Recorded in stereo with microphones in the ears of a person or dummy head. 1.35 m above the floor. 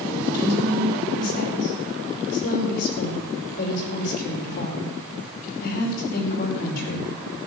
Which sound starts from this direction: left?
A woman speaking, at 0.3 s.